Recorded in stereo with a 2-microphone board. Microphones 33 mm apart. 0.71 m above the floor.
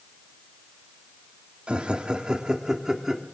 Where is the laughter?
35° right (ahead or behind), 1.9 m; by 3.2 s 15° right (ahead or behind), 2 m.